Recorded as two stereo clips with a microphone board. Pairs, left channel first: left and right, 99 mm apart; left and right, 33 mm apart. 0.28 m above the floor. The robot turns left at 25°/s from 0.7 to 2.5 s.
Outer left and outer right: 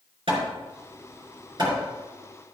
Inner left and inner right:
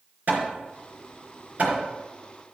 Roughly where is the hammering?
Right.